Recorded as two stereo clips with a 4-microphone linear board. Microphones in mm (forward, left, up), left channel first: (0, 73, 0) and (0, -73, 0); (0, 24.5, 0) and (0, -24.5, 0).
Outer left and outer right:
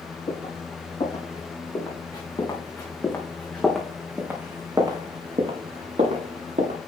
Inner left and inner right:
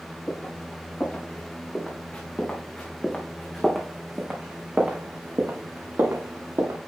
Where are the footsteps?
50° left (ahead or behind), 5.5 m; by 6.8 s 60° right (ahead or behind), 4 m.